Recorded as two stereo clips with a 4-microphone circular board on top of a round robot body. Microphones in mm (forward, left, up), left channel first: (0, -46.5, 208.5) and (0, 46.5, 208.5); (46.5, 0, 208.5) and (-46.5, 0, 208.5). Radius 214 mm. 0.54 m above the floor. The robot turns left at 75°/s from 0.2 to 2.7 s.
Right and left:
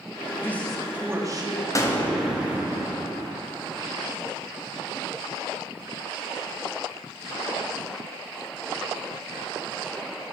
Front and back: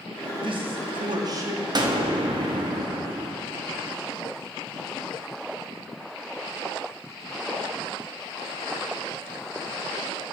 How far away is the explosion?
About 1.3 m.